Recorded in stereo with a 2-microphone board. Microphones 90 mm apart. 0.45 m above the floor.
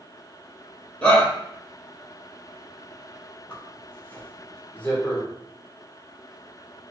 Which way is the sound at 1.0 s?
15° left (ahead or behind).